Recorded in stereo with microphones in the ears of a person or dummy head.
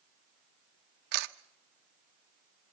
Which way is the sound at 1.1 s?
65° right (ahead or behind).